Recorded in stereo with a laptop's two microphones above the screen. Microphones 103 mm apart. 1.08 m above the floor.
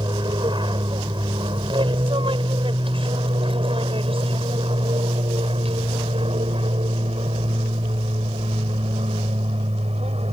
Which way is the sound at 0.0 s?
45° right (ahead or behind).